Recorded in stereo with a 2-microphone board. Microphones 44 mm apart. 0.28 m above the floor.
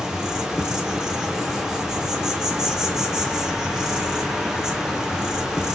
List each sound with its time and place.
0.0 s an insect: 15° right (ahead or behind), 1.0 m